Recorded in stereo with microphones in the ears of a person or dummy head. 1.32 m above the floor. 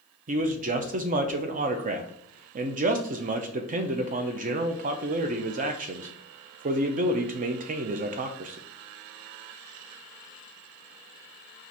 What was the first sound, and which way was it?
A man speaking, 35° right (ahead or behind).